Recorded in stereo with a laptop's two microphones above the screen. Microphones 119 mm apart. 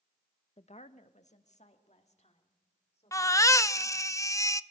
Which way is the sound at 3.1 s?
25° left (ahead or behind).